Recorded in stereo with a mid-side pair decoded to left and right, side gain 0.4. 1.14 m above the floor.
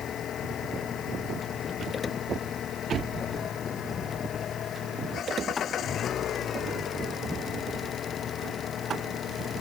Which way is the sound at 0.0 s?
70° left.